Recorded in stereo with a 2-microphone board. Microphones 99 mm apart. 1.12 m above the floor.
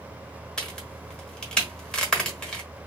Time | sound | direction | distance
0.6 | a crack | 10° left (ahead or behind) | 1.1 m